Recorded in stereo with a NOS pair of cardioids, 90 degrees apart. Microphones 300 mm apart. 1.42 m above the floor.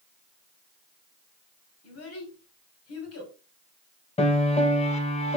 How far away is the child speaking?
About 3 m.